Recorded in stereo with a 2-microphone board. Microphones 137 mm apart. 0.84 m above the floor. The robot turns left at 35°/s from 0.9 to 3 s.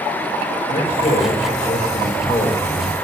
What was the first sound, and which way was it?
A man speaking, 85° left.